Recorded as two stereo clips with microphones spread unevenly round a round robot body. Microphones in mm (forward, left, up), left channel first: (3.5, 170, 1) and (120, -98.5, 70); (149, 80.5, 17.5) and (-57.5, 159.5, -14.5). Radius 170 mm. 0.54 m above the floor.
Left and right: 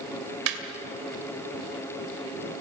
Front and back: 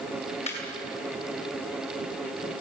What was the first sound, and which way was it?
Laughter, 95° right.